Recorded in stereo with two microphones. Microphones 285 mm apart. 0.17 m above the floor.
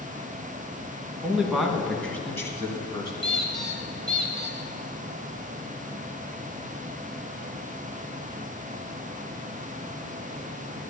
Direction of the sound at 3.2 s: 15° left (ahead or behind).